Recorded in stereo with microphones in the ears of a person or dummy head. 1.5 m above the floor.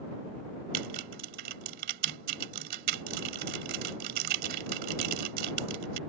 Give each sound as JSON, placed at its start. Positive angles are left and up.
{"t": 0.7, "sound": "typing on a keyboard", "side_deg": -55}